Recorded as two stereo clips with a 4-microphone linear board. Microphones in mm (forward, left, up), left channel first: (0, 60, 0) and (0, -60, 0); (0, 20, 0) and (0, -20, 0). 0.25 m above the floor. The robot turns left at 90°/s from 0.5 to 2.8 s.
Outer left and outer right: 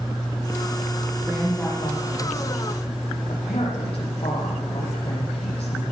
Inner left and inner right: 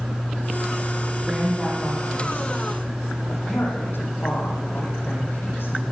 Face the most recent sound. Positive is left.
turn(degrees=55)